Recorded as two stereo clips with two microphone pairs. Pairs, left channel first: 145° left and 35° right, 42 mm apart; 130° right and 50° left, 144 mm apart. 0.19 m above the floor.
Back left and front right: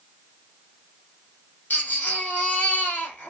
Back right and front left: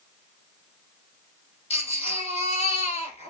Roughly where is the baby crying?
Behind.